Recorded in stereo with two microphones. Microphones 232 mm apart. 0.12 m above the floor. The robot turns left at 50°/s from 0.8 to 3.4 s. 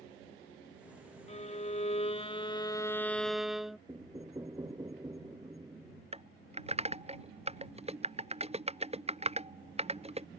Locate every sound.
1.3 s a violin: 105° left; by 3.8 s straight ahead
3.9 s knocking: 15° right (ahead or behind)
6.1 s typing on a keyboard: 25° right (ahead or behind)